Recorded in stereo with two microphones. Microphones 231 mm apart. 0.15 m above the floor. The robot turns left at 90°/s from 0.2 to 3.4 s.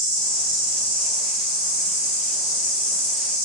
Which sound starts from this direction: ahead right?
An insect, at 0.0 s.